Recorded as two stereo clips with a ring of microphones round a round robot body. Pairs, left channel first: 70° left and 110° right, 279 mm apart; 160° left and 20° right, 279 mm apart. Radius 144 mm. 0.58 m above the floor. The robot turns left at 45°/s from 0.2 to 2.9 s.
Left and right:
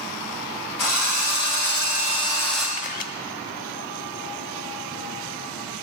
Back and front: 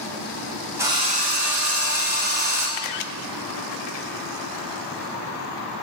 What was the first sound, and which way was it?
A drill, 60° left.